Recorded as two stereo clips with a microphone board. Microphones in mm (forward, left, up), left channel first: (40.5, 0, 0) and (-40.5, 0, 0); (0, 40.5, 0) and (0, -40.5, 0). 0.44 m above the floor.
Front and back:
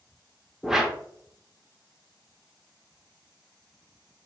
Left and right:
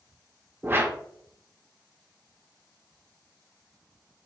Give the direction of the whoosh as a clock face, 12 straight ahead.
3 o'clock.